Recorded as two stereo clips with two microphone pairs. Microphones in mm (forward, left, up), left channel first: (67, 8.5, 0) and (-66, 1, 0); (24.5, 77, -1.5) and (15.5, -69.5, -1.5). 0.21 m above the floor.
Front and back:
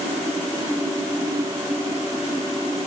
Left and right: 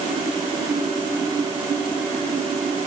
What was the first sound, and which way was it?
Only background noise.